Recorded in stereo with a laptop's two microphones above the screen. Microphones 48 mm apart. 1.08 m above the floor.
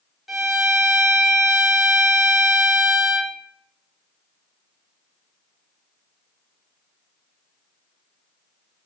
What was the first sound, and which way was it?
A violin, centre (ahead or behind).